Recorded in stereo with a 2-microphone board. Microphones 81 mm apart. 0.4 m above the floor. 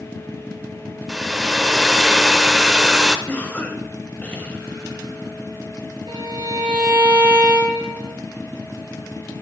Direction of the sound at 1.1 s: 5° right (ahead or behind).